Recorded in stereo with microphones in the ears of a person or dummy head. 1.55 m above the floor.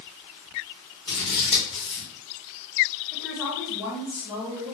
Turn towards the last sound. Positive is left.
turn(degrees=10)  # may be behind; listen again after turning